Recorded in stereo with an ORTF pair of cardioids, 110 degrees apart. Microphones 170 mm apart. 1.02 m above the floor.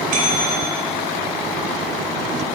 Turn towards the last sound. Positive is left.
turn(degrees=-55)